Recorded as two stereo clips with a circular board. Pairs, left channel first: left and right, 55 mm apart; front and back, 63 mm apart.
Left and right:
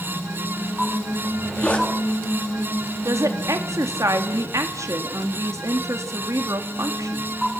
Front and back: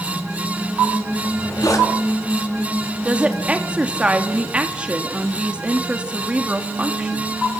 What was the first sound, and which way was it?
A zipper, 25° left.